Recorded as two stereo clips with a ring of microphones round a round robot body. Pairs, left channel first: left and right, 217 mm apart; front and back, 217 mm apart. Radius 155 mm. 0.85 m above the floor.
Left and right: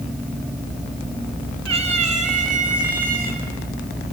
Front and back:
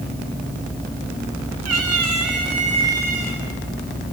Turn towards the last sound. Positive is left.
turn(degrees=-135)